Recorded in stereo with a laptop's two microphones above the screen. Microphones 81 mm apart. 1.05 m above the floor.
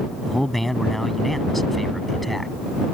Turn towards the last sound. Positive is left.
turn(degrees=0)  # may be behind; listen again after turning